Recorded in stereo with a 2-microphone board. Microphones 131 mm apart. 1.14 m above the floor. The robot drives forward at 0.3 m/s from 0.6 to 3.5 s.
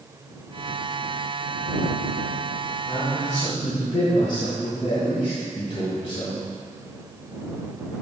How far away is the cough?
No cough in this recording.